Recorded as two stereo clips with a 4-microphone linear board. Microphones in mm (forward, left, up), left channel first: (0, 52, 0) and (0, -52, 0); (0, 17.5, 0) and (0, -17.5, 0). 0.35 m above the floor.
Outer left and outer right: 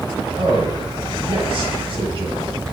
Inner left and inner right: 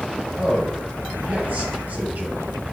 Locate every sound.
0.4 s a man speaking: 60° right (ahead or behind), 2.5 m